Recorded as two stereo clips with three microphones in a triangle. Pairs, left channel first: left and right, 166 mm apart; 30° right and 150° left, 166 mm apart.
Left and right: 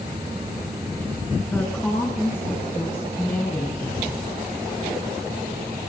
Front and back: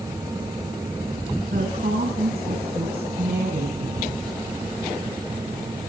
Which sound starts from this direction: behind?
A woman speaking, at 1.5 s.